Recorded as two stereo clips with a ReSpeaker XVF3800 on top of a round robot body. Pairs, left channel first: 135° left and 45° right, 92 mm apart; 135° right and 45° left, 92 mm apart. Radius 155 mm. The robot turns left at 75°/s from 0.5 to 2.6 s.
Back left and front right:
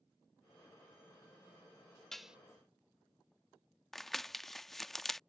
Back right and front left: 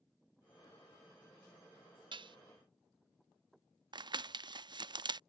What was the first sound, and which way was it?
Dishes clattering, 50° left.